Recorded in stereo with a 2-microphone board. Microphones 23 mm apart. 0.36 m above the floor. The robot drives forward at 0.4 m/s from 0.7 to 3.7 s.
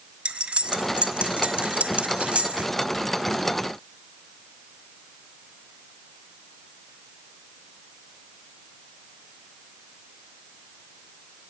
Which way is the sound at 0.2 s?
55° right (ahead or behind).